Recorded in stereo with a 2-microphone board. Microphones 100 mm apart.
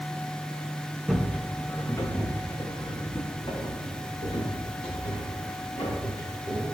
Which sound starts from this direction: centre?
Footsteps, at 1.1 s.